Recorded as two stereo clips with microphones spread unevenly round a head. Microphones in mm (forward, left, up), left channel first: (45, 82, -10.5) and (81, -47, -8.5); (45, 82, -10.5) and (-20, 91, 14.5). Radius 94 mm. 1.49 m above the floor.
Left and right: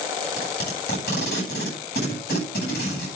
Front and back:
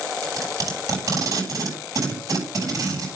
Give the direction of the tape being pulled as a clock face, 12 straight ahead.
7 o'clock.